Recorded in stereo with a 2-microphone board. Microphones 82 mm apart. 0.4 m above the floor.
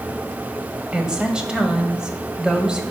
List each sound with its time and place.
0.9 s a woman speaking: 10° right (ahead or behind), 1.5 m